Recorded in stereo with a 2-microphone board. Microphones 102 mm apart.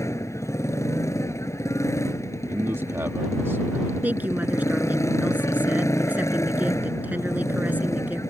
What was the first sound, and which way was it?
A motorcycle, 30° left (ahead or behind).